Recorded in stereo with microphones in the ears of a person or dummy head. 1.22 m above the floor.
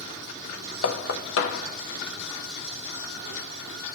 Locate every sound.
0.8 s knocking: 75° left (ahead or behind), 1.1 m